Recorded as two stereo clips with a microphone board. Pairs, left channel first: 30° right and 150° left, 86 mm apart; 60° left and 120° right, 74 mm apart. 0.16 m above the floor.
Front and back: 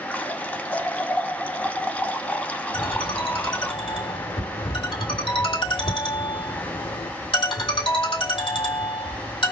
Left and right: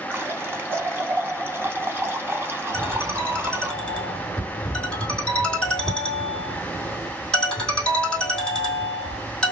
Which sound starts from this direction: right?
A running tap, at 0.1 s.